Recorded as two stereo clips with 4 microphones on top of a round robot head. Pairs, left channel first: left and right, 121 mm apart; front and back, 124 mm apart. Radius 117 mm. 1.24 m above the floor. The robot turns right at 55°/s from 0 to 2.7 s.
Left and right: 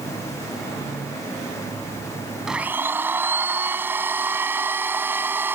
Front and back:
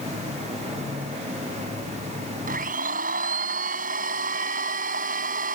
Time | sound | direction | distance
2.5 | a blender | 175° right | ?